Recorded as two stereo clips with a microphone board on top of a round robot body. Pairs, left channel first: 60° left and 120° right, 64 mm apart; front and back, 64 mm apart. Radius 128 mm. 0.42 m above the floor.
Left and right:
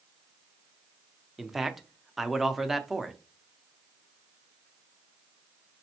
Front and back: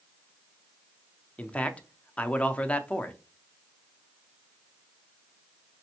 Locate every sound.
1.4 s a man speaking: 35° right, 0.7 m